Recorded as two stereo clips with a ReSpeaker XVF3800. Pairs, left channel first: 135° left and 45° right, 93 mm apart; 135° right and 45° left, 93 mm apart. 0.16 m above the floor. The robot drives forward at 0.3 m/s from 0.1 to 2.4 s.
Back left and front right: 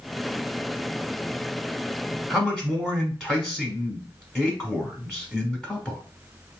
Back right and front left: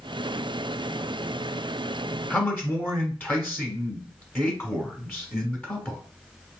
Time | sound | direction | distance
2.3 | a man speaking | 150° right | 1.2 m